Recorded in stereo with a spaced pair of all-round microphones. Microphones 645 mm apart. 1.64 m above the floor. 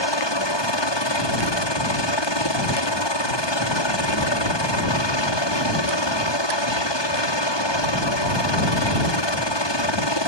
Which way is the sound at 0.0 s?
40° left (ahead or behind).